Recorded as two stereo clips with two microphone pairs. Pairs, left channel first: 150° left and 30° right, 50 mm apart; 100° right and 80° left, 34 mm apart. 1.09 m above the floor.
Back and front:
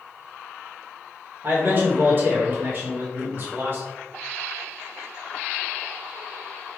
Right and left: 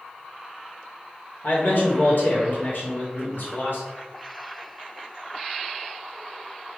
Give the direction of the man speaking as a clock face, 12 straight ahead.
3 o'clock.